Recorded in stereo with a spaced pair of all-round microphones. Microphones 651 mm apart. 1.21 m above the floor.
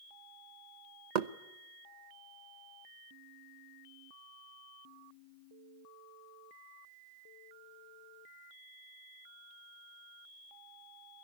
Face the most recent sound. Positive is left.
turn(degrees=-80)